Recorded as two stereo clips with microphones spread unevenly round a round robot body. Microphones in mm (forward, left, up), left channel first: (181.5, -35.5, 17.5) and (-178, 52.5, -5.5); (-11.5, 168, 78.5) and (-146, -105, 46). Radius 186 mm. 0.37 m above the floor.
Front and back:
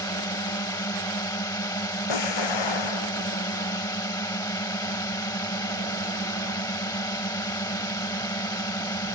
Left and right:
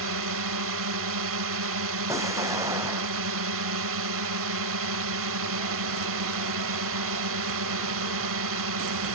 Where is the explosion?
35° right.